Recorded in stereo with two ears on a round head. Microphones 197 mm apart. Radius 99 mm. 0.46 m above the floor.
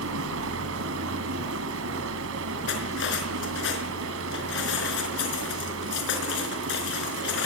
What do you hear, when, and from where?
0.0 s running water: 70° right (ahead or behind), 3.5 m
2.7 s cutlery clinking: 60° left (ahead or behind), 4.5 m